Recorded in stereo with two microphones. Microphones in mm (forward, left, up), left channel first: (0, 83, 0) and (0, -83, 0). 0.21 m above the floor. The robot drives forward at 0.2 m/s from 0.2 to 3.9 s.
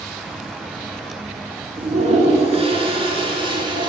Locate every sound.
1.8 s a toilet flushing: 45° right (ahead or behind), 0.7 m; by 3.9 s 30° right (ahead or behind), 1.0 m